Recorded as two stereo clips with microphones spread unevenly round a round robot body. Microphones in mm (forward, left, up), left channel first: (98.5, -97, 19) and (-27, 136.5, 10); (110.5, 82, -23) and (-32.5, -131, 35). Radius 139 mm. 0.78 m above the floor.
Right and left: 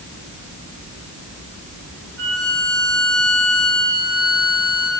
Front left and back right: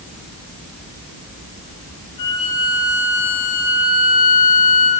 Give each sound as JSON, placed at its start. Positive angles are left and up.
{"t": 2.2, "sound": "a violin", "azimuth_deg": 75, "distance_m": 6.0}